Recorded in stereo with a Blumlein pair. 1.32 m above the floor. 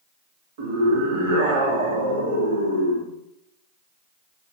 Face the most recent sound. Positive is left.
turn(degrees=-55)